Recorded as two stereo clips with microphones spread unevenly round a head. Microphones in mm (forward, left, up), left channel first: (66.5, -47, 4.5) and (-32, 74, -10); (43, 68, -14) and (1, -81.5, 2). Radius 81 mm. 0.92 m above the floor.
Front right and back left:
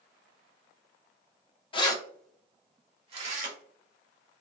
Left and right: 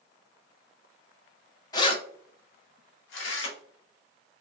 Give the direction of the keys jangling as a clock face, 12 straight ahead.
12 o'clock.